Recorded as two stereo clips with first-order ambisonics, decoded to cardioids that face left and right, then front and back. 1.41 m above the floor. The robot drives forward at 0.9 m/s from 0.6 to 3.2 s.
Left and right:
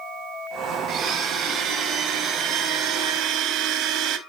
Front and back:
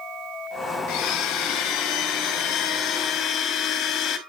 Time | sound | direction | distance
0.9 | a blender | 25° right | 4.5 m